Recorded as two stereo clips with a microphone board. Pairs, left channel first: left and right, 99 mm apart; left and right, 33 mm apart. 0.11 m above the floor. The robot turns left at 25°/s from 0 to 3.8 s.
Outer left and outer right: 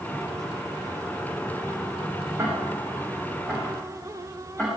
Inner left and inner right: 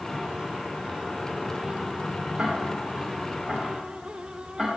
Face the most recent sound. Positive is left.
turn(degrees=10)  # may be behind; listen again after turning